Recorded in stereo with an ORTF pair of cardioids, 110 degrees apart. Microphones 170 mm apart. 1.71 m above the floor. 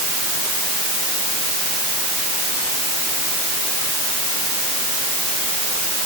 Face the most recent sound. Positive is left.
No sound to turn to.